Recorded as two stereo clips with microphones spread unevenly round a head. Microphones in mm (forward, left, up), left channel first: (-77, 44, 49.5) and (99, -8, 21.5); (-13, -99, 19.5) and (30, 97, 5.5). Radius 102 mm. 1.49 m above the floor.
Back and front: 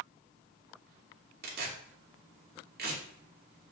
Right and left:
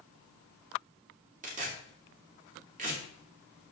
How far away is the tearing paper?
About 2.5 m.